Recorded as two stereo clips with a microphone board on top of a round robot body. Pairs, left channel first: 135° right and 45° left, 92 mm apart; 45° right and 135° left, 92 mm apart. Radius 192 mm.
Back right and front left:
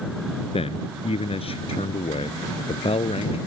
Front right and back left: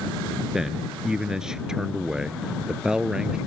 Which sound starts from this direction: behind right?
A man speaking, at 0.5 s.